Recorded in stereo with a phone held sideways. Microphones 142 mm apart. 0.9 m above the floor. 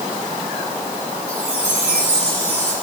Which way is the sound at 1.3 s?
40° left (ahead or behind).